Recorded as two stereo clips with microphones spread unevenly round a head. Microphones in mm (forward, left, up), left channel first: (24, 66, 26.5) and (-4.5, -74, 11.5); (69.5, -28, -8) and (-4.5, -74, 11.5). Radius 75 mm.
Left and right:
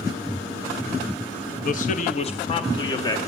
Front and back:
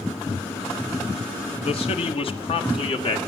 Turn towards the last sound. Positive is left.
turn(degrees=10)